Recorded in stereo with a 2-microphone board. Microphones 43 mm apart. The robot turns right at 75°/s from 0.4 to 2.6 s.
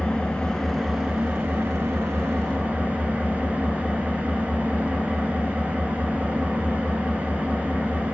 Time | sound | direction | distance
0.0 | an engine running | 155° left | 1.1 m